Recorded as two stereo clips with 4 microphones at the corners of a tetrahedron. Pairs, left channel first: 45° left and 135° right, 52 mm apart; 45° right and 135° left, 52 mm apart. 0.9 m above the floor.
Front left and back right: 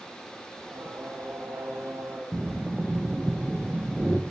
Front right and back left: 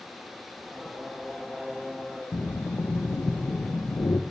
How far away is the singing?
About 1.5 m.